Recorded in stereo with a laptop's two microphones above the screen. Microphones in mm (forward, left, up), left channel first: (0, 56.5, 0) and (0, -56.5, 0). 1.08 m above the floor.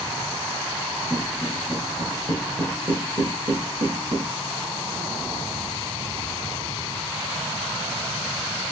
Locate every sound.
1.1 s footsteps: 5° right (ahead or behind), 1.5 m; by 4.2 s 55° right (ahead or behind), 2.5 m